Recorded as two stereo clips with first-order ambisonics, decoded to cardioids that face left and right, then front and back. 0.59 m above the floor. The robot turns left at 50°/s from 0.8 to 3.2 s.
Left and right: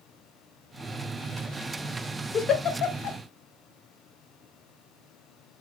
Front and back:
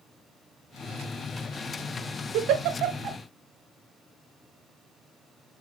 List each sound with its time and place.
2.3 s a giggle: 160° left, 0.6 m; by 3.2 s 115° left, 0.6 m